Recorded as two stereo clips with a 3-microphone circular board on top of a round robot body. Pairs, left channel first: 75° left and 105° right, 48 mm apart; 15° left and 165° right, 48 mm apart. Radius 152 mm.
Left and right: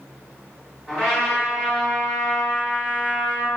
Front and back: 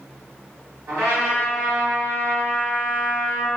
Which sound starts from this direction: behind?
A trumpet, at 0.9 s.